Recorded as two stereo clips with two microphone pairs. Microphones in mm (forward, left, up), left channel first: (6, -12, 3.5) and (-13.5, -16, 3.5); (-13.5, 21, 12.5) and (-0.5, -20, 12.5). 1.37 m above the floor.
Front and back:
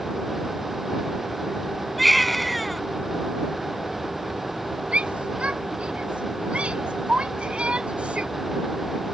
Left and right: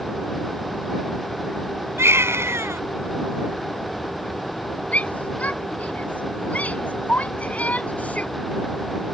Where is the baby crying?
80° right.